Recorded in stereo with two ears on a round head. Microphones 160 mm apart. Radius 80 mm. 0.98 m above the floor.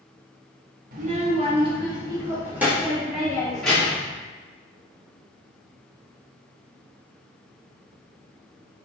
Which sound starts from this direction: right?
A child speaking, at 0.9 s.